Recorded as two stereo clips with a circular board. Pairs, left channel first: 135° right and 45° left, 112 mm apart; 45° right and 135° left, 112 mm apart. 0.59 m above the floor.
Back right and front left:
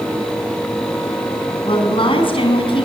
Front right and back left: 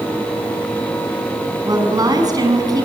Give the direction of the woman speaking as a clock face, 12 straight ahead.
6 o'clock.